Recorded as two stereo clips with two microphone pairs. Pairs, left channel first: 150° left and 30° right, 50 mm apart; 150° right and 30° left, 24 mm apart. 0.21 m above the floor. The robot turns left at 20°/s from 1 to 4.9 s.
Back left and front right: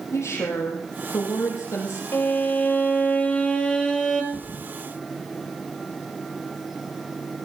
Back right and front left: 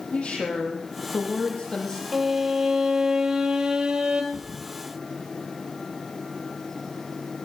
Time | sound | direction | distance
0.1 | a woman speaking | 165° left | 6.5 m
2.1 | a violin | 110° left | 2 m
4.3 | a thud | 95° left | 4 m